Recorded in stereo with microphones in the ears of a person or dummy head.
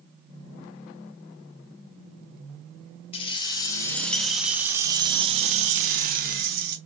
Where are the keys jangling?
30° left (ahead or behind), 1.2 m; by 6.8 s 60° right (ahead or behind), 1.5 m.